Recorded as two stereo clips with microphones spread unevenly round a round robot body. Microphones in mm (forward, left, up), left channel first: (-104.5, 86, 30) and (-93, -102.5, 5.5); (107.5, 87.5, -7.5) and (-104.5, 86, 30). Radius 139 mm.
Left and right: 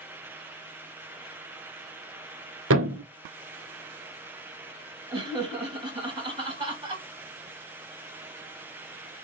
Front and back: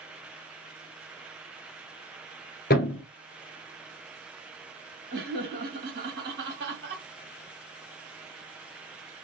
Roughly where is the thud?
Ahead right.